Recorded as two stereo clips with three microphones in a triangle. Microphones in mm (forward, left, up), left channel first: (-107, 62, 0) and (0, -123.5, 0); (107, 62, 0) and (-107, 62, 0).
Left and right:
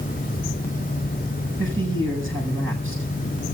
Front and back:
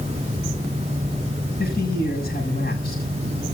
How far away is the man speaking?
About 7 m.